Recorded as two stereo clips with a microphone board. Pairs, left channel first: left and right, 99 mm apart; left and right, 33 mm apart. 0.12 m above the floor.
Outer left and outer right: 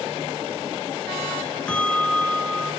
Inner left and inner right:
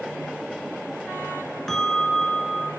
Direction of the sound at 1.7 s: 10° left (ahead or behind).